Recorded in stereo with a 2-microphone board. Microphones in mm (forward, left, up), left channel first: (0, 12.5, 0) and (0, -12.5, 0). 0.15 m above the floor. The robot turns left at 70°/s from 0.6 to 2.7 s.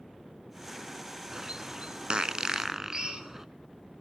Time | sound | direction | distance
1.3 | a bird | 30° right (ahead or behind) | 0.5 m
2.9 | a drill | 35° right (ahead or behind) | 1.9 m